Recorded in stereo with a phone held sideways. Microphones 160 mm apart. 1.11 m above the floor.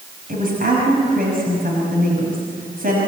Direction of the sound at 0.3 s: 60° right (ahead or behind).